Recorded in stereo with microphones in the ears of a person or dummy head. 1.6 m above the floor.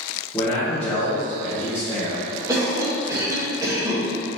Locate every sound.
0.3 s a man speaking: 15° left (ahead or behind), 1.2 m
2.5 s a cough: 20° right (ahead or behind), 1.9 m